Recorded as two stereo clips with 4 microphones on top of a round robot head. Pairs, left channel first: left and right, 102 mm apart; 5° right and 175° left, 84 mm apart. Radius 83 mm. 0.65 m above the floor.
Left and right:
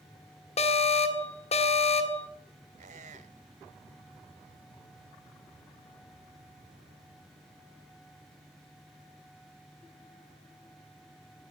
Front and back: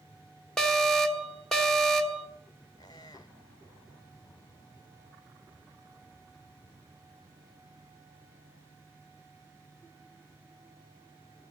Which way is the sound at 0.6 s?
80° left.